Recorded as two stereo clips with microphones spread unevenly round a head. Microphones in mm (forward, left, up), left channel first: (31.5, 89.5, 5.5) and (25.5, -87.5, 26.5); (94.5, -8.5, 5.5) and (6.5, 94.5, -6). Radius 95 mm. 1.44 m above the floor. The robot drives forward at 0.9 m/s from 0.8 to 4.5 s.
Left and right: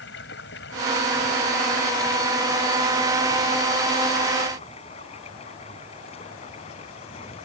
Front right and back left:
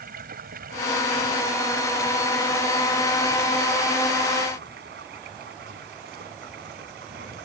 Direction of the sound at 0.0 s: 125° left.